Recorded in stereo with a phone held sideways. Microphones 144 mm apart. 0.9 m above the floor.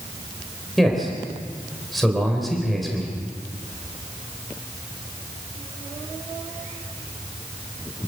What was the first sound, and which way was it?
A man speaking, centre (ahead or behind).